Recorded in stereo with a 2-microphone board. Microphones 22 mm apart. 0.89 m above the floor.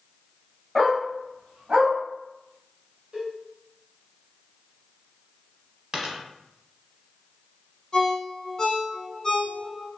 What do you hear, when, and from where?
0.8 s a dog barking: 15° right (ahead or behind), 1.2 m; by 1.9 s 70° right (ahead or behind), 1.5 m
3.1 s a cowbell: 45° right (ahead or behind), 2.0 m
5.9 s a dropped coin: 25° right (ahead or behind), 1.0 m
7.9 s a ringtone: 25° left (ahead or behind), 1.3 m